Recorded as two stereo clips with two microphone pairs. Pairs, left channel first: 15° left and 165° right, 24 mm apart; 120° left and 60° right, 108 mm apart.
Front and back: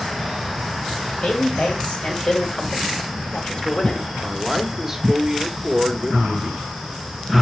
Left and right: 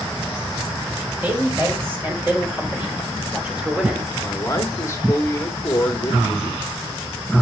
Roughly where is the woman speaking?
Ahead.